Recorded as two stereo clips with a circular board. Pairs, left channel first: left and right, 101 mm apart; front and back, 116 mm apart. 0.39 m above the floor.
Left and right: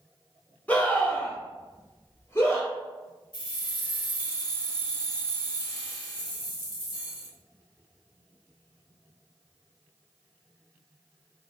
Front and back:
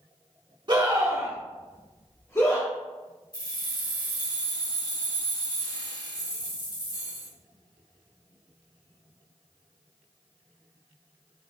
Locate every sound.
0.7 s a scream: 155° left, 1.2 m; by 2.7 s 35° left, 1.2 m
3.3 s keys jangling: 50° left, 1.7 m